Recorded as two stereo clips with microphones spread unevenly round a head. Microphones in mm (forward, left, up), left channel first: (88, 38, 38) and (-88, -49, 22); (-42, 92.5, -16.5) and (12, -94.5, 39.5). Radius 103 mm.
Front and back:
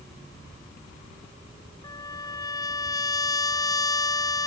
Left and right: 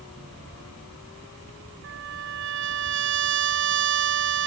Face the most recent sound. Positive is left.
turn(degrees=-45)